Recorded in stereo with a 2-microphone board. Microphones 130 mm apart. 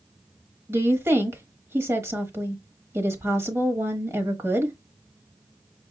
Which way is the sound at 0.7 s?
20° right (ahead or behind).